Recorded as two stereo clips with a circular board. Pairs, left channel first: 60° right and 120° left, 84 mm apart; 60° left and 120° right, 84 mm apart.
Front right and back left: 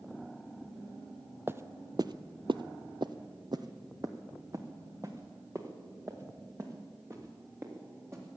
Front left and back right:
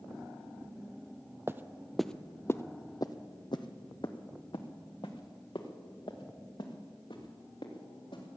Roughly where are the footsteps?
Behind.